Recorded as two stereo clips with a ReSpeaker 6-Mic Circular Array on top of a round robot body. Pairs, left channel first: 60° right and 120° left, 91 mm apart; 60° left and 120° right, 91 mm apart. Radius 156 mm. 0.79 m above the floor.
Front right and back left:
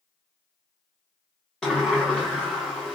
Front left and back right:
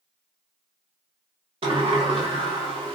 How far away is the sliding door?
About 0.5 m.